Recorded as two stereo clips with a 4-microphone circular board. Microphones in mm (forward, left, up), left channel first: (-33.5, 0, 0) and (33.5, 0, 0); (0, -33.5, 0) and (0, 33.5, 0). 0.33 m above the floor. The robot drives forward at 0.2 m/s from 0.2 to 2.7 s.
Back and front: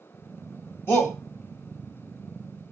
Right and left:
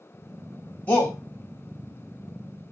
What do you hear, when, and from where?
0.9 s a shout: 140° right, 1.3 m; by 1.2 s 145° right, 1.3 m